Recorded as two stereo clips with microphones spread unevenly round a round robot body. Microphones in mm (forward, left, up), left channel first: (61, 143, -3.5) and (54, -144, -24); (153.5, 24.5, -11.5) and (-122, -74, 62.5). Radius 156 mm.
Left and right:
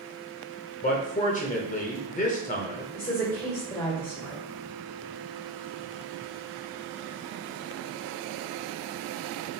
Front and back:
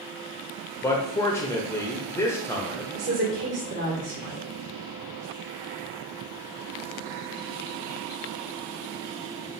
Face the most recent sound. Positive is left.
turn(degrees=165)